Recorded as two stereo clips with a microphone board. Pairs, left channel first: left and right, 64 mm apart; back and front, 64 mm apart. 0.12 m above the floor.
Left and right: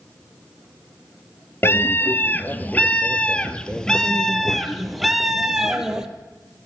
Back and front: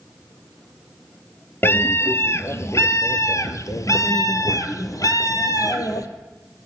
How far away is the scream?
About 2.5 m.